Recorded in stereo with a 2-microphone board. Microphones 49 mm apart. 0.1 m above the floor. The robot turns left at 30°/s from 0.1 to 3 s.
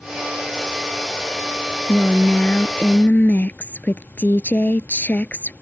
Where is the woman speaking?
155° left; by 5.5 s 120° left.